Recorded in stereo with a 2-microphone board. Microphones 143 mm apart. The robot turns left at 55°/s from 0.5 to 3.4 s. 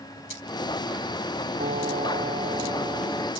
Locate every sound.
1.6 s a piano: 80° right; by 3.3 s 175° right